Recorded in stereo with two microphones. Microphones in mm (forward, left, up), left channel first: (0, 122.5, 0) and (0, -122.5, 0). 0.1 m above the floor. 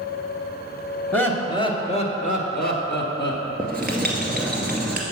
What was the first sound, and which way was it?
Laughter, 5° left (ahead or behind).